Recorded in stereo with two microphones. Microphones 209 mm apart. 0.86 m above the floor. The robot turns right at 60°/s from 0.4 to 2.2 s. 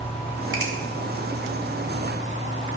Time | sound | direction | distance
0.5 | a finger snap | 70° right (ahead or behind) | 3.5 m